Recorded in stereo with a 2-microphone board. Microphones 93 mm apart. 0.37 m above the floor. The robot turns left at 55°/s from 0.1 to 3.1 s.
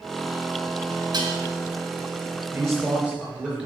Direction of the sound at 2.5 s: 140° right.